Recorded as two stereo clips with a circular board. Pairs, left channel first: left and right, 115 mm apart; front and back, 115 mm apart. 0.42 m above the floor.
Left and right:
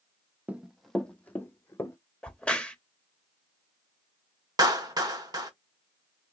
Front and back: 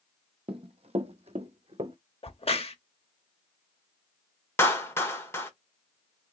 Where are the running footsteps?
165° right, 0.7 m; by 2.0 s 155° left, 1.2 m.